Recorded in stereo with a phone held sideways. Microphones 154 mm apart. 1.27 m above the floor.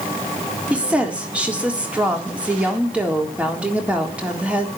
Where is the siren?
I don't hear a siren.